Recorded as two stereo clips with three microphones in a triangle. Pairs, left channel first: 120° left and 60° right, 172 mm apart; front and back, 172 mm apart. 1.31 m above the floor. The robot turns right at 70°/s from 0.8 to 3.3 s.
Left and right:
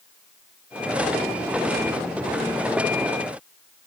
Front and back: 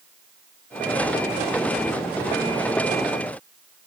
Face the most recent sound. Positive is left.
No sound to turn to.